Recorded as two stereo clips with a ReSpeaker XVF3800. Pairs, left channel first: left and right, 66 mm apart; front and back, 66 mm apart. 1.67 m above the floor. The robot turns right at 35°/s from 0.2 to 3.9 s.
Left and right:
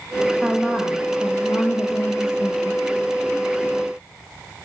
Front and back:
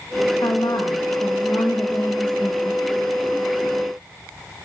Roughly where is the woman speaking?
Ahead.